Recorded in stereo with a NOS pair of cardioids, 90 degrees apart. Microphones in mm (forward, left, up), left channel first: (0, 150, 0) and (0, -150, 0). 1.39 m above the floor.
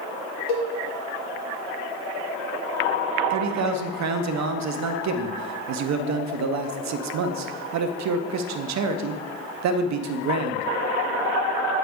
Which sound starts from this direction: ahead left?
A cowbell, at 0.5 s.